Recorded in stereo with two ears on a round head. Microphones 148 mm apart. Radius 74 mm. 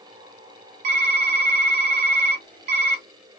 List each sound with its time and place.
0.8 s typing on a keyboard: 45° right (ahead or behind), 1.4 m